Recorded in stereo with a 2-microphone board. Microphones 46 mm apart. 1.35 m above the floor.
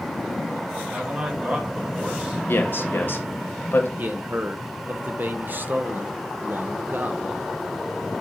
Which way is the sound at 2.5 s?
55° left (ahead or behind).